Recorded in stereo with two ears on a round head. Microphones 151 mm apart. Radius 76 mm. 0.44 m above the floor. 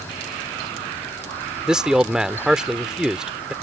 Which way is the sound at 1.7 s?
5° right (ahead or behind).